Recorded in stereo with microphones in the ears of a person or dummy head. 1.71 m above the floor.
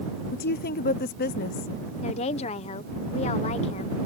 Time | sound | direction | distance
0.3 | a woman speaking | 45° left (ahead or behind) | ?
2.0 | a woman speaking | 35° left (ahead or behind) | ?